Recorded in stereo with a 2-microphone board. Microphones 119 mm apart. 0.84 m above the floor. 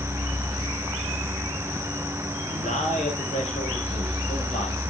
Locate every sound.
2.4 s a man speaking: 80° left, 4 m; by 4.9 s 75° left (ahead or behind), 5.5 m